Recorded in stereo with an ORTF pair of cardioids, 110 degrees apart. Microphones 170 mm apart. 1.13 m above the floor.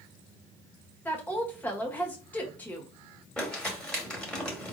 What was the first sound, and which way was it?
A woman speaking, 10° left.